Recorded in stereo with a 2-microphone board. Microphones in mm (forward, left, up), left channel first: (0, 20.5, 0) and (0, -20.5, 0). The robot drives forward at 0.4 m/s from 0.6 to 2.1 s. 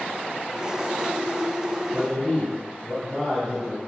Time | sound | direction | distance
1.9 | a man speaking | centre (ahead or behind) | 1.4 m